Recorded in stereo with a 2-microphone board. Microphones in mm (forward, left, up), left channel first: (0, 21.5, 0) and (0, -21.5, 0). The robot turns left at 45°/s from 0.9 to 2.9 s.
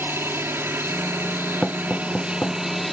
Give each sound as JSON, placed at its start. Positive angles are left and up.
{"t": 0.0, "sound": "an aircraft", "azimuth_deg": -85}
{"t": 1.6, "sound": "knocking", "side_deg": 0}